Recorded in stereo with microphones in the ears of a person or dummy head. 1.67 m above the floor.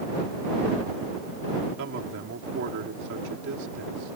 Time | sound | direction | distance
1.8 | a man speaking | 65° right (ahead or behind) | ?